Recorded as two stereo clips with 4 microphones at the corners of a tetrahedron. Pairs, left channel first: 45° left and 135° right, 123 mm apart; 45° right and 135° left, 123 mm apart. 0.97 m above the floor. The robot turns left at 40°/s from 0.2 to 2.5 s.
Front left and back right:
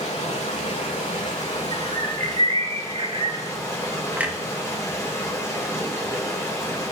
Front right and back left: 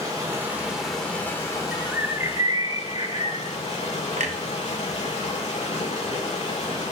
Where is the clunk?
145° left, 0.8 m.